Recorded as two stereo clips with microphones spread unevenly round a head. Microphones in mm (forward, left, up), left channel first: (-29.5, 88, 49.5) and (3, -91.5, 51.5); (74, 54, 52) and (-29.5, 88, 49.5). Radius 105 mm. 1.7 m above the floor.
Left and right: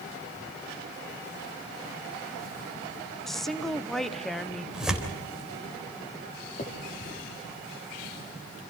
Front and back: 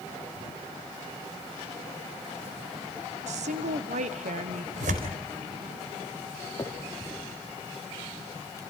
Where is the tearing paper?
165° right, 3.5 m.